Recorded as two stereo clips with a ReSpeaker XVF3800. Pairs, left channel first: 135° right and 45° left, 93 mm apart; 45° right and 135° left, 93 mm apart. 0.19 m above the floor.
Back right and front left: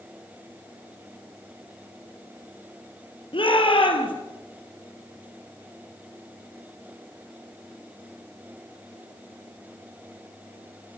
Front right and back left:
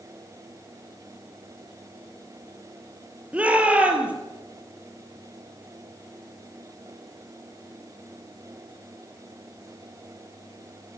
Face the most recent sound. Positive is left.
turn(degrees=-150)